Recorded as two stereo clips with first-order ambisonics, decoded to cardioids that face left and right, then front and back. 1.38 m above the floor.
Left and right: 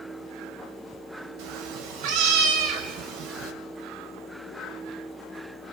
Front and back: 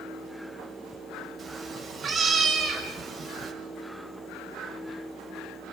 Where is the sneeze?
I don't hear a sneeze.